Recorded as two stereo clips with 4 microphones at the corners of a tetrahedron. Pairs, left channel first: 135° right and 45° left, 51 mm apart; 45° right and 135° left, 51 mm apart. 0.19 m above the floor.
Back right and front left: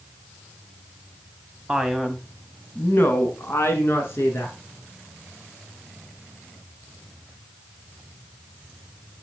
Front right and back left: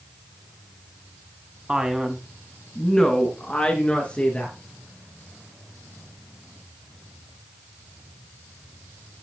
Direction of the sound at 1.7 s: 105° left.